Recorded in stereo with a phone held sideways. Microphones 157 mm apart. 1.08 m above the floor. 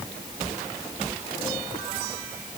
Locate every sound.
Only background noise.